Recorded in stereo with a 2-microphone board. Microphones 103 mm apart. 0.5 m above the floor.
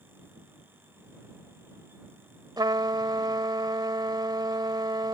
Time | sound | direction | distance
2.6 | a trumpet | 45° right (ahead or behind) | ?